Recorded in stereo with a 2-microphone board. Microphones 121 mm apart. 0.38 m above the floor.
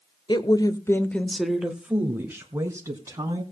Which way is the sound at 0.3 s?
40° left (ahead or behind).